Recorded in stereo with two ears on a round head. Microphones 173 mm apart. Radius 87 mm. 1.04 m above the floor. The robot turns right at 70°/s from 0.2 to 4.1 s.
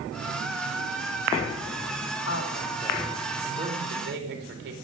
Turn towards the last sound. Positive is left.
turn(degrees=-120)